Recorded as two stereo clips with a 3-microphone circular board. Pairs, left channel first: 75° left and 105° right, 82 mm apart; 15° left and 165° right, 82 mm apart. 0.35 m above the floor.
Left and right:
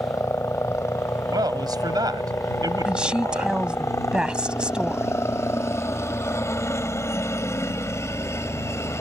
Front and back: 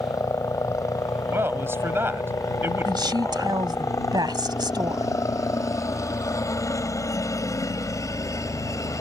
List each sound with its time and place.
0.0 s a helicopter: 40° left
1.3 s a man speaking: 110° right
2.9 s a woman speaking: straight behind